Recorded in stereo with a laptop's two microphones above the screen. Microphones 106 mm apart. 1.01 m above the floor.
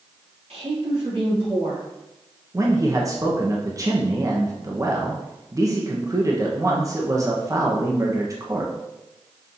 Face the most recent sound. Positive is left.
turn(degrees=-30)  # may be behind; listen again after turning